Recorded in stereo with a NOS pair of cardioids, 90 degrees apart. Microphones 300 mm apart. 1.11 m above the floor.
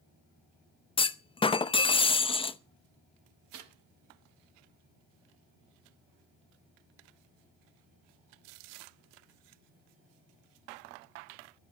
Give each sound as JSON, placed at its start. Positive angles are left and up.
{"t": 1.0, "sound": "a clunk", "azimuth_deg": 15, "distance_m": 0.7}
{"t": 3.5, "sound": "a snare drum", "azimuth_deg": -60, "distance_m": 6.5}